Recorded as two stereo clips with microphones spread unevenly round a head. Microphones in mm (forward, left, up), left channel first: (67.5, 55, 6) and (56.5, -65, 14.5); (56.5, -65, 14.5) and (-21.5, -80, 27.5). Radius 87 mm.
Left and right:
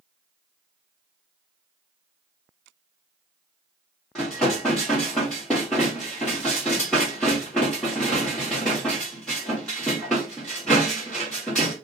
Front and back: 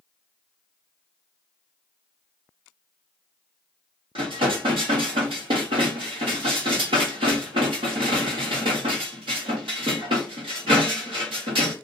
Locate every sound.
4.2 s dishes clattering: 170° left, 1.0 m